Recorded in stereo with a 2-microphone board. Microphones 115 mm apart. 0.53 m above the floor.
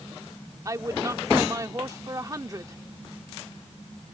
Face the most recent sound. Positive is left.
turn(degrees=-30)  # may be behind; listen again after turning